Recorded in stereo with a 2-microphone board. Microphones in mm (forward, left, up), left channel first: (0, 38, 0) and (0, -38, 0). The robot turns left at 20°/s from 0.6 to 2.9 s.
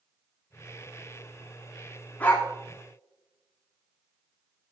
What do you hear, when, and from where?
2.2 s a dog barking: 20° left (ahead or behind), 4 m; by 2.5 s 25° left (ahead or behind), 4 m